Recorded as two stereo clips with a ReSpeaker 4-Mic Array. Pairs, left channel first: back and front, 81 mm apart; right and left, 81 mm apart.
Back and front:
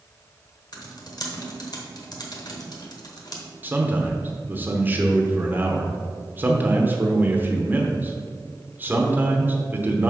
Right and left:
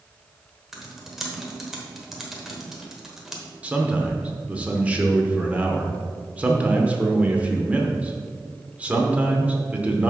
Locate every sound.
0.7 s typing on a keyboard: 175° left, 1.1 m
3.6 s a man speaking: 35° left, 0.8 m